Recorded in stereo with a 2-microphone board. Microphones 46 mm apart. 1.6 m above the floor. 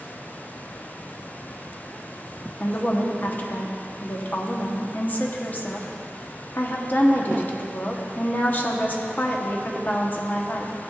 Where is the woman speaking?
40° left (ahead or behind), 1.0 m.